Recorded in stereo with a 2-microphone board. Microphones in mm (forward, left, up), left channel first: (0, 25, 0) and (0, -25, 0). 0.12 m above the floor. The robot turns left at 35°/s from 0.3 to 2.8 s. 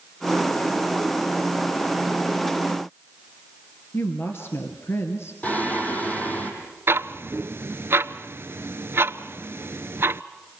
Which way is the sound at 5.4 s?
30° left (ahead or behind).